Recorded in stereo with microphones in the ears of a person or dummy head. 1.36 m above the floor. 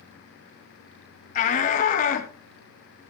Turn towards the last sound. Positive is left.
turn(degrees=50)  # may be behind; listen again after turning